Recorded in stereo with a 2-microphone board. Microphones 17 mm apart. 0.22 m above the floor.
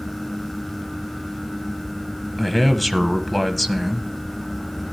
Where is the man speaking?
10° left (ahead or behind), 1.1 m.